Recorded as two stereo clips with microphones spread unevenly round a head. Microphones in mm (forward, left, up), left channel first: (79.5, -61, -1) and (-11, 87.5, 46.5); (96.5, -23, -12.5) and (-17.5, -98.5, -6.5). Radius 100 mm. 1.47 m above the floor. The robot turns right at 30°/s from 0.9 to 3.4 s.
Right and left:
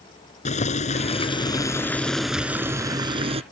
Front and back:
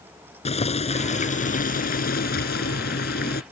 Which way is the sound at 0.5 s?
5° right.